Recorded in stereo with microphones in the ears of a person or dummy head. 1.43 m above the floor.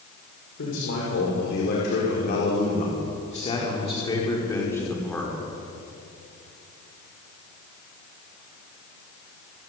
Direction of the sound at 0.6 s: 75° left (ahead or behind).